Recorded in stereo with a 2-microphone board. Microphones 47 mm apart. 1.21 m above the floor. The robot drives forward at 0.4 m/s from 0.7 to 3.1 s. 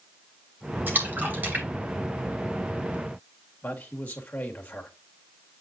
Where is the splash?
45° right (ahead or behind), 2.5 m; by 2.9 s 35° right (ahead or behind), 3 m.